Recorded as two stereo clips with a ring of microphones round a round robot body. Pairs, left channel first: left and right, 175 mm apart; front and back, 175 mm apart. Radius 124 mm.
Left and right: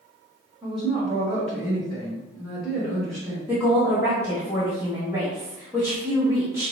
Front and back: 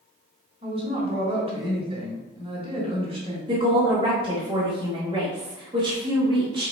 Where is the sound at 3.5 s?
150° right, 1.0 m.